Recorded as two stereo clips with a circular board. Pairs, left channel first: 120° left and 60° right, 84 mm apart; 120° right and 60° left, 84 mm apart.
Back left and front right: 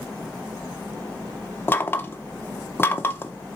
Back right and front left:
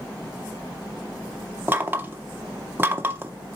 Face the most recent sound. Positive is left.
turn(degrees=90)